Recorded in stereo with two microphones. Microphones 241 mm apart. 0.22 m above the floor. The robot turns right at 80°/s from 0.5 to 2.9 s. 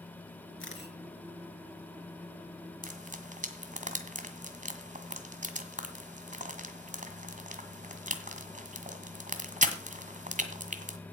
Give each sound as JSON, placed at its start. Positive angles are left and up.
{"t": 0.6, "sound": "a camera shutter", "side_deg": 60, "distance_m": 3.5}
{"t": 2.8, "sound": "frying", "side_deg": -35, "distance_m": 1.7}